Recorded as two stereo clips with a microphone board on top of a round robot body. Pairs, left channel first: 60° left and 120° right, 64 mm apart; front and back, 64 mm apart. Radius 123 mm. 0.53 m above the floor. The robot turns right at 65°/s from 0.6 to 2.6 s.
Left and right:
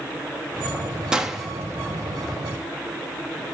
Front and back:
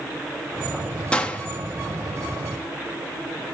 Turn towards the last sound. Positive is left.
turn(degrees=45)